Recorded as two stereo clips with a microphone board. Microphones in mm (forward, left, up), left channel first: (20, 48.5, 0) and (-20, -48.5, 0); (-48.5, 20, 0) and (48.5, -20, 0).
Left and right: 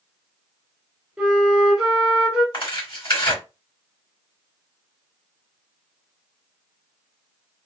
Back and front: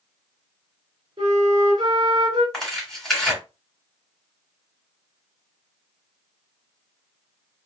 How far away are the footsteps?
No footsteps in this recording.